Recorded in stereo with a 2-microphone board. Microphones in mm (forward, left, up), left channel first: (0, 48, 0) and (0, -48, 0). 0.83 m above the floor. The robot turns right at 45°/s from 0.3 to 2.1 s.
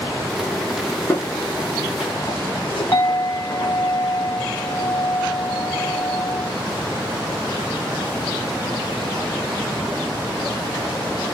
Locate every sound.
1.1 s footsteps: 30° left (ahead or behind), 2.5 m; by 3.8 s 25° left (ahead or behind), 3.5 m
2.9 s a clink: 25° left (ahead or behind), 2.5 m